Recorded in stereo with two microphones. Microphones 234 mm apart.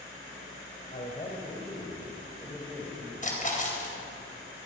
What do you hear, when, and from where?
0.9 s a man speaking: 40° left (ahead or behind), 3.5 m; by 3.1 s centre (ahead or behind), 4.5 m
3.2 s a splash: 35° left (ahead or behind), 4 m